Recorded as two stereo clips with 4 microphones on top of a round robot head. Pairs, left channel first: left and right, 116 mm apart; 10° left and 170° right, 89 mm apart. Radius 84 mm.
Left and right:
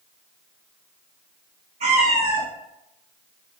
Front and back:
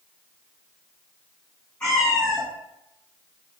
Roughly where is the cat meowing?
Right.